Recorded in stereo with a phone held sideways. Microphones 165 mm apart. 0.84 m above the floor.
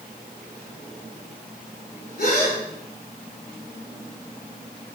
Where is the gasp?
70° left (ahead or behind), 1.8 m.